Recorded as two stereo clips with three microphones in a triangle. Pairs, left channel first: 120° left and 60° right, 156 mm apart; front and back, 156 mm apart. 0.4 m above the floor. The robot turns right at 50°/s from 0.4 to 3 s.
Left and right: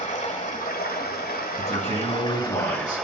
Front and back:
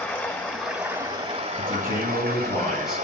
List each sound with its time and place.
0.0 s running water: 80° left, 1.3 m; by 3.0 s 150° right, 1.3 m
1.6 s a man speaking: 25° left, 2.5 m; by 3.0 s 100° left, 2.5 m